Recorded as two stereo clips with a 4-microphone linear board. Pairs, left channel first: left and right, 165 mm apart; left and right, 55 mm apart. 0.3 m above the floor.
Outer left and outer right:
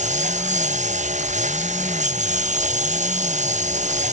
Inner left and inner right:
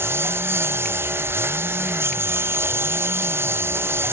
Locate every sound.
0.0 s a lawn mower: 45° right (ahead or behind)